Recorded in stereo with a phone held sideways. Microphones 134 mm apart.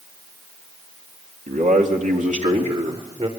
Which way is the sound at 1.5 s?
75° right (ahead or behind).